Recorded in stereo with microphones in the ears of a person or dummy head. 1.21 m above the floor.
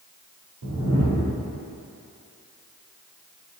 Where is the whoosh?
85° right, 2.5 m.